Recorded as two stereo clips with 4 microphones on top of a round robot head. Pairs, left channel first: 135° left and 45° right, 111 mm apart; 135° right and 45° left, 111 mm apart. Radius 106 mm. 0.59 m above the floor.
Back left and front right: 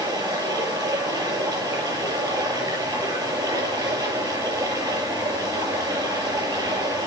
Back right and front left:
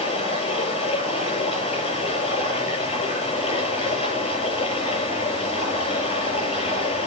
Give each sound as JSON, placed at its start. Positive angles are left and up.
{"t": 0.0, "sound": "running water", "azimuth_deg": -105, "distance_m": 8.0}